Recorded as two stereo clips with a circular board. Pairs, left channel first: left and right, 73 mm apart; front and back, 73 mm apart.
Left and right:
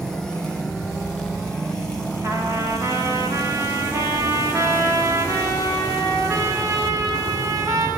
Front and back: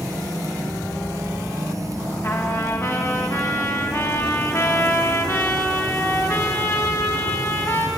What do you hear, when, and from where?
2.2 s a trumpet: 45° right, 3 m